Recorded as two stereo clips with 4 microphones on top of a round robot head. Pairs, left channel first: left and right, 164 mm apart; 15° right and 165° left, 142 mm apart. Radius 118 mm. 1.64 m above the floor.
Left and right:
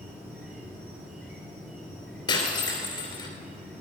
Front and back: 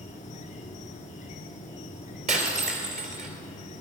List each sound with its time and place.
0.0 s an insect: 10° right, 1.5 m
2.3 s breaking glass: 145° left, 2 m